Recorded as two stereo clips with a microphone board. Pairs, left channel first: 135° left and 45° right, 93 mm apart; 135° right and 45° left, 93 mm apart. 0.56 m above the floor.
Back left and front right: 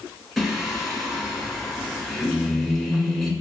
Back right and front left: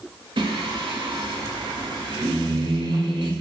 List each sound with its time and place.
0.4 s singing: 45° left, 0.8 m